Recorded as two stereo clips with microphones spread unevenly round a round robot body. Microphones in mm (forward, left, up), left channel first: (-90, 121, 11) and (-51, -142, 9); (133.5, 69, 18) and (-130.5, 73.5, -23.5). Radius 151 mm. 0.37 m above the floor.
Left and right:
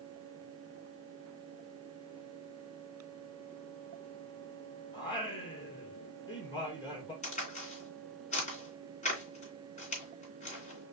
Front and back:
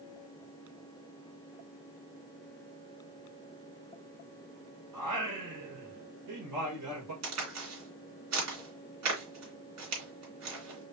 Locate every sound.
4.9 s singing: 170° left, 2.5 m
7.2 s a crack: 160° left, 2.5 m